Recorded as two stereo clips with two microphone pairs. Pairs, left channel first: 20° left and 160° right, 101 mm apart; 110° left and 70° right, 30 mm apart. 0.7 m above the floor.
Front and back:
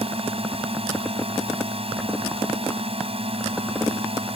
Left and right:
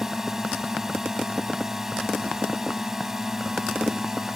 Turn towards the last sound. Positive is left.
turn(degrees=-145)